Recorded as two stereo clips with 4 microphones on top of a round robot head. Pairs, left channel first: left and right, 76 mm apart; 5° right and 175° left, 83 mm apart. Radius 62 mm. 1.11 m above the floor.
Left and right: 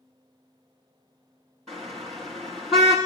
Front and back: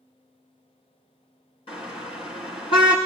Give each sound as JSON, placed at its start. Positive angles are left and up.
{"t": 1.7, "sound": "a car horn", "azimuth_deg": 0, "distance_m": 7.0}